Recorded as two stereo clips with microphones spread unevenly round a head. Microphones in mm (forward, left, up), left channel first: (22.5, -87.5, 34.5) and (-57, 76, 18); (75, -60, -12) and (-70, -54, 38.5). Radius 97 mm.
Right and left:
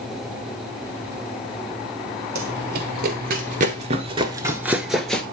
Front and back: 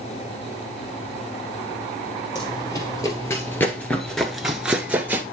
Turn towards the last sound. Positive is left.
turn(degrees=-140)